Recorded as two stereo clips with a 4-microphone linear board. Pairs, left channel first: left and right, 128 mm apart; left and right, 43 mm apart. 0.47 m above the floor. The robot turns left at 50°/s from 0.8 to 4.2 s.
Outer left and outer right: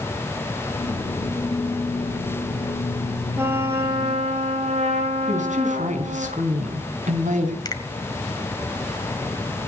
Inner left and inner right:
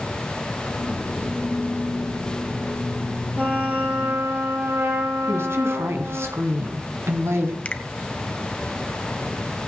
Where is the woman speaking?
70° right (ahead or behind), 4.5 m.